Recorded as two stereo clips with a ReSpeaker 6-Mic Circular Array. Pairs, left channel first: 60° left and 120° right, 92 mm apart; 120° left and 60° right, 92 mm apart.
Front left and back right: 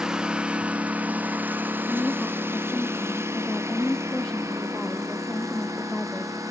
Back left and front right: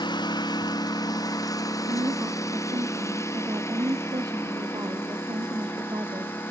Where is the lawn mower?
155° left; by 6.5 s 175° right.